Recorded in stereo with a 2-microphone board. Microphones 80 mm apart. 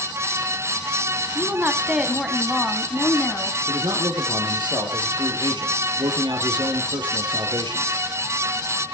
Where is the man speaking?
70° right (ahead or behind), 3.5 m.